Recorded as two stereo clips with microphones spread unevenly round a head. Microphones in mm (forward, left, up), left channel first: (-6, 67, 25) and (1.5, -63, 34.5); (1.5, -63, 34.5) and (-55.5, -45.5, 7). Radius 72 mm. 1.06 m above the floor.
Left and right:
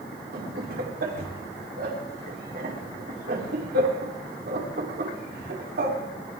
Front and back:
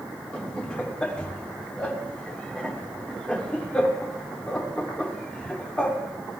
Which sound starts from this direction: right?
Laughter, at 0.3 s.